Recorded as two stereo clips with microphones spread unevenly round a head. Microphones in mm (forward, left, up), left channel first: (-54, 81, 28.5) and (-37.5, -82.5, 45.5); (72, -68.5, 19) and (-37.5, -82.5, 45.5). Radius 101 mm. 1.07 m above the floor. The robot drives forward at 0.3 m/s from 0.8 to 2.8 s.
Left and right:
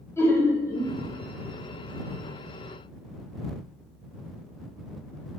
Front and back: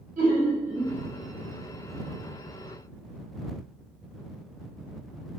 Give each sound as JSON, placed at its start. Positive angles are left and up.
{"t": 0.2, "sound": "laughter", "azimuth_deg": 170, "distance_m": 0.9}